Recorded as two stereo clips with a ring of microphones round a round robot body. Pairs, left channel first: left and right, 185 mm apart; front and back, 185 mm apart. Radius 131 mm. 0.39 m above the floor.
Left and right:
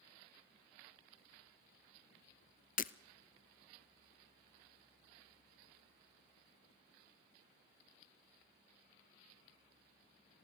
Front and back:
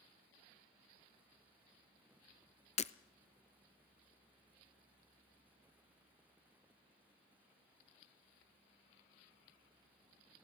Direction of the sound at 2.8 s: 50° left.